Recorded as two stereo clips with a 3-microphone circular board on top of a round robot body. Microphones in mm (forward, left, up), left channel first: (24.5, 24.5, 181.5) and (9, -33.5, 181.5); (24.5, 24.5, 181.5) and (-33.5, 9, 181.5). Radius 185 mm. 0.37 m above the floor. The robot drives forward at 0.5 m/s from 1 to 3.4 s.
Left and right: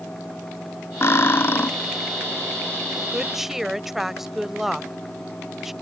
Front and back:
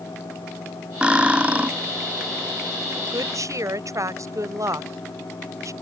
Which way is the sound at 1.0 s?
125° left.